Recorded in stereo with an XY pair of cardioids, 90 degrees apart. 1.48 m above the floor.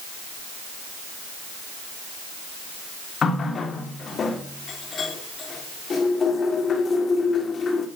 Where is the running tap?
50° left, 3 m.